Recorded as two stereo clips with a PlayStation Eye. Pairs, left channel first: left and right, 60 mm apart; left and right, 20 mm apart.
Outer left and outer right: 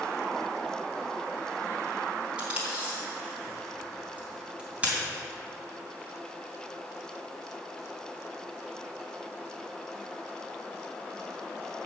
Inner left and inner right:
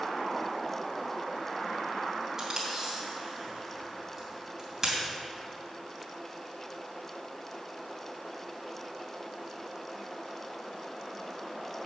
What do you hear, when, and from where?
2.4 s tape being pulled: 25° right (ahead or behind), 2.5 m